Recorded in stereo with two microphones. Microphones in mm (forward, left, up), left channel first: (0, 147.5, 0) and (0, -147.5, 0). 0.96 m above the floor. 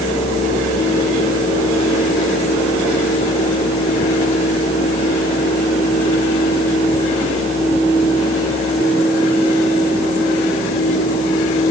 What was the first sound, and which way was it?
Only background noise.